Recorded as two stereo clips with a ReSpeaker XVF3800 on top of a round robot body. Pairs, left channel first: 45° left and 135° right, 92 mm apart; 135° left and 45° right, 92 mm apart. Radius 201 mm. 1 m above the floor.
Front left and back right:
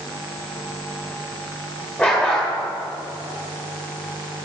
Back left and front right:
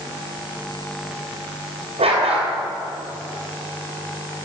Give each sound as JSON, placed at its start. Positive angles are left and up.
{"t": 2.0, "sound": "a dog barking", "azimuth_deg": -35, "distance_m": 2.0}